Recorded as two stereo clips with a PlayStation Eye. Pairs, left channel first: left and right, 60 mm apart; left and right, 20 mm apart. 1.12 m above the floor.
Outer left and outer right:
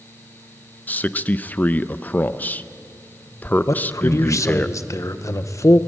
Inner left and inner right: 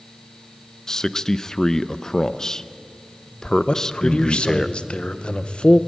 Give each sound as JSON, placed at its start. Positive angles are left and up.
{"t": 0.9, "sound": "a man speaking", "side_deg": 25, "distance_m": 0.6}
{"t": 3.7, "sound": "a man speaking", "side_deg": 50, "distance_m": 0.9}